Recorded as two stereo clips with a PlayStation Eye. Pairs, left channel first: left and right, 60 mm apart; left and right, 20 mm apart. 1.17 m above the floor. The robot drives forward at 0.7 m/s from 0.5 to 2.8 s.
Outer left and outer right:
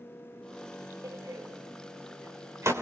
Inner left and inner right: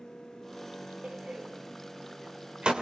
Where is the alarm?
No alarm in this recording.